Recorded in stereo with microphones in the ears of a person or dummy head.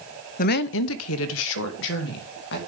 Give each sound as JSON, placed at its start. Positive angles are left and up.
{"t": 0.4, "sound": "a woman speaking", "side_deg": 45, "distance_m": 0.6}